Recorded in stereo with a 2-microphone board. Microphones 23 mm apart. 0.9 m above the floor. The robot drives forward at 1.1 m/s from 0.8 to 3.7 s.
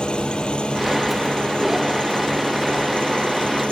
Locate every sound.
0.0 s an engine running: 50° left (ahead or behind); by 3.7 s 55° left (ahead or behind)